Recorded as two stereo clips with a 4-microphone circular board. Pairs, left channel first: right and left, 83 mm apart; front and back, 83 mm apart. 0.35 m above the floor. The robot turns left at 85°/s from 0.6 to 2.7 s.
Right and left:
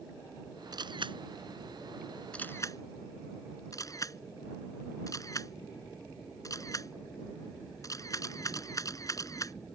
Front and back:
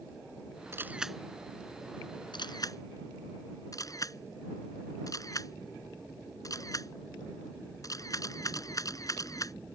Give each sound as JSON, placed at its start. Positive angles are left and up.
{"t": 0.7, "sound": "a camera shutter", "azimuth_deg": 125}